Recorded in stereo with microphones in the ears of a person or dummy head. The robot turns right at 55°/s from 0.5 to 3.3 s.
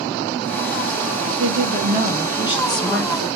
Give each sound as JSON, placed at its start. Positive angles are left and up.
{"t": 1.3, "sound": "a woman speaking", "azimuth_deg": -80, "distance_m": 1.8}